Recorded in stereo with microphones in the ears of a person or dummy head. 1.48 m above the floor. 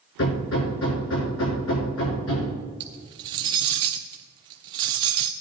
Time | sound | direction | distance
0.2 | hammering | 80° left | 5.5 m
2.8 | cutlery clinking | 25° right (ahead or behind) | 0.6 m